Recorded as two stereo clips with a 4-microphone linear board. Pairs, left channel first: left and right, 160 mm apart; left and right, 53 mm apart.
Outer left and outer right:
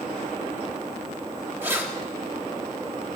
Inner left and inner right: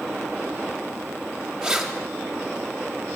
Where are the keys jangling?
15° right (ahead or behind), 1.1 m.